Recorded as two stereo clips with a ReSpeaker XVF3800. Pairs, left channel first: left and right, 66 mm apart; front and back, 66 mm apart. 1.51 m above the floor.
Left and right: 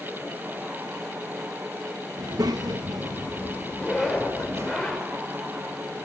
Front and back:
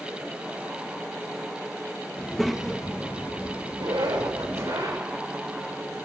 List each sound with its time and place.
2.2 s a child speaking: 80° right, 1.6 m; by 4.7 s 135° right, 2.5 m
3.7 s a zipper: straight behind, 5.5 m